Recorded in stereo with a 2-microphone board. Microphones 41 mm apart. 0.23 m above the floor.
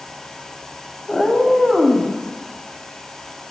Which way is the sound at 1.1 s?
15° left (ahead or behind).